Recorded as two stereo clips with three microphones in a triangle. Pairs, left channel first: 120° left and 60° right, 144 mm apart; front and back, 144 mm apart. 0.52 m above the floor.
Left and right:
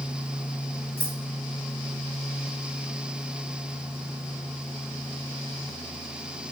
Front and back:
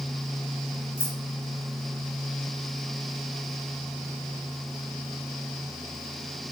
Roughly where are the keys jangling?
Ahead left.